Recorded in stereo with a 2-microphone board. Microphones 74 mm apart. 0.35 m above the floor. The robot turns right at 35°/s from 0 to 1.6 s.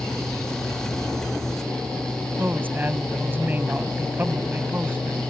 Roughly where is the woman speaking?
Right.